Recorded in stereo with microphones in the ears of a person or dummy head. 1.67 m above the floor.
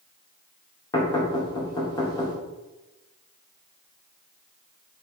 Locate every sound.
0.9 s knocking: 20° left (ahead or behind), 2.5 m